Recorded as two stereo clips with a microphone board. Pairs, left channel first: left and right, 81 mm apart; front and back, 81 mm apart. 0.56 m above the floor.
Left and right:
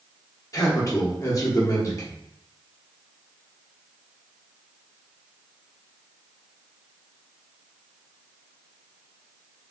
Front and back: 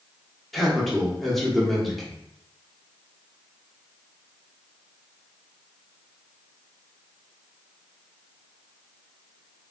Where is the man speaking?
90° left, 0.9 m.